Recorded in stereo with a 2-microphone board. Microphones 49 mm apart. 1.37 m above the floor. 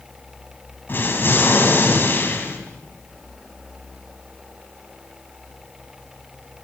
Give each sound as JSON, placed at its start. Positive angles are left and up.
{"t": 0.9, "sound": "an explosion", "side_deg": 50, "distance_m": 3.0}